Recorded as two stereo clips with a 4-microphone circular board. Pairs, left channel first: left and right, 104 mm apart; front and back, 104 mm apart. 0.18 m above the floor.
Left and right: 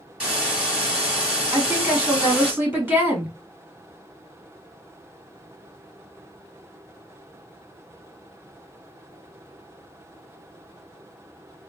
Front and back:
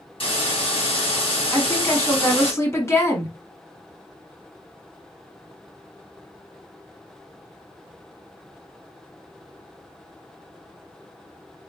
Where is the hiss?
10° right, 2.5 m.